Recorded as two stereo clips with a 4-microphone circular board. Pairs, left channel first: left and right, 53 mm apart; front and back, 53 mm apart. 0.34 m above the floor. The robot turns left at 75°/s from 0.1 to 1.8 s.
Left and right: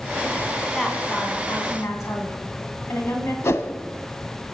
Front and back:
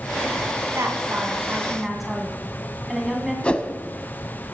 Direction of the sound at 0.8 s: 170° left.